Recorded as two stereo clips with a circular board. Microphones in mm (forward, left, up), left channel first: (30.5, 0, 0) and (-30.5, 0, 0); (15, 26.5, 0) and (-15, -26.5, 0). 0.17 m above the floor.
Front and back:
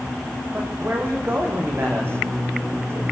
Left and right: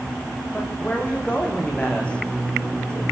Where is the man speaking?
125° left, 8.5 m; by 3.0 s 135° left, 8 m.